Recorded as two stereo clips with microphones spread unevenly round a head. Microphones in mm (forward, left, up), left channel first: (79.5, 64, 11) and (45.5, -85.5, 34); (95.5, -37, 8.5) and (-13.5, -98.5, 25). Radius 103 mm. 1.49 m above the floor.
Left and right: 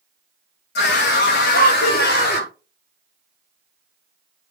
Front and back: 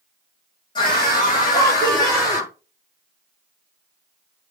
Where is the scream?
95° left, 2.5 m; by 2.5 s 100° left, 4.5 m.